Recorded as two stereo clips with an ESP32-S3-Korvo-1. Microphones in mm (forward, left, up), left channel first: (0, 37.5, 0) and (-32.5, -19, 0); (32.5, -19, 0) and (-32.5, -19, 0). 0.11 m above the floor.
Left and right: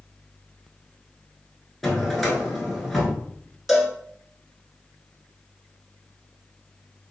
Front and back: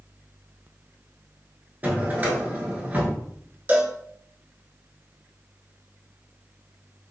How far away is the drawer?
About 0.9 m.